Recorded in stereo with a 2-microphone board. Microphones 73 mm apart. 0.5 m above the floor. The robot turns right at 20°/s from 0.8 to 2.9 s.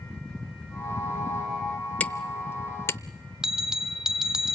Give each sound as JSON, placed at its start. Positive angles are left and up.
{"t": 2.0, "sound": "hammering", "side_deg": 25, "distance_m": 0.7}
{"t": 3.4, "sound": "a bell", "side_deg": -5, "distance_m": 0.7}